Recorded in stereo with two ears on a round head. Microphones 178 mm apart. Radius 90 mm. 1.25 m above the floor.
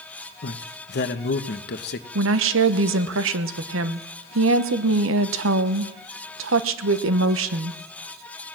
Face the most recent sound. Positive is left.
turn(degrees=-70)  # may be behind; listen again after turning